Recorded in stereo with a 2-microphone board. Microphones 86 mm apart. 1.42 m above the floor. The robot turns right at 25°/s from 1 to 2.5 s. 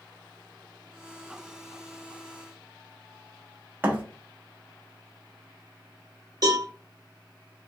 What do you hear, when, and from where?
3.8 s a thud: 20° right (ahead or behind), 0.7 m
6.4 s a cowbell: 45° right (ahead or behind), 1.2 m